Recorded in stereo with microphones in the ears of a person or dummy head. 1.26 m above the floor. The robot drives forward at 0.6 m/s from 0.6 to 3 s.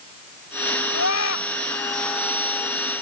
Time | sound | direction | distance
0.9 | a scream | 85° left | ?